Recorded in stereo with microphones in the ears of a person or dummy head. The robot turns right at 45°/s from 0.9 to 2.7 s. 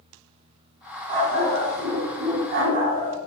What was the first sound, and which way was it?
A dog barking, 150° right.